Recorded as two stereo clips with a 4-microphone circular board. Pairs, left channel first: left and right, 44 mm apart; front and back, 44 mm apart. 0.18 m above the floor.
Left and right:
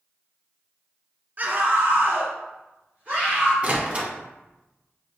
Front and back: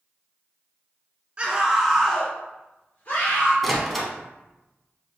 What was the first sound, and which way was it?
A scream, 125° right.